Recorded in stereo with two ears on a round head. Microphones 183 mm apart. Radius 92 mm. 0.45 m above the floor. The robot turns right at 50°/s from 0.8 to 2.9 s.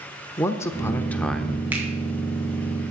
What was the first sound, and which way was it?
A man speaking, 15° left (ahead or behind).